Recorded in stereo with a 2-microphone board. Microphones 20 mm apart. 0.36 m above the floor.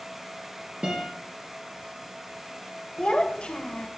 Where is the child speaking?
55° left (ahead or behind), 0.9 m.